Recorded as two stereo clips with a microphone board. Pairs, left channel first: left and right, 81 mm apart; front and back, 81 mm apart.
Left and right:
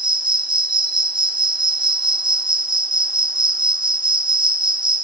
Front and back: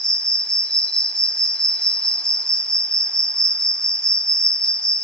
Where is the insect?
80° right, 0.7 m.